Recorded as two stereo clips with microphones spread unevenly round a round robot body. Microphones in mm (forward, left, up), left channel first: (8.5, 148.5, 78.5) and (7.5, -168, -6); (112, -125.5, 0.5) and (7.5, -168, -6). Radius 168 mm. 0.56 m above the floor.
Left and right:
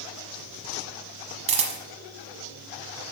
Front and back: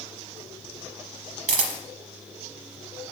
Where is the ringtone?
I don't hear a ringtone.